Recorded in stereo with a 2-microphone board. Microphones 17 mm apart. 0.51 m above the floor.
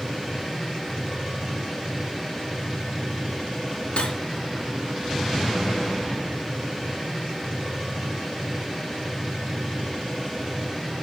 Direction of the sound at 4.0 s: 75° left (ahead or behind).